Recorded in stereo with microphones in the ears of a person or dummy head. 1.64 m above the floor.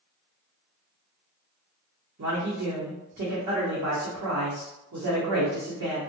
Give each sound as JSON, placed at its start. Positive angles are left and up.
{"t": 2.2, "sound": "a man speaking", "side_deg": -60, "distance_m": 0.9}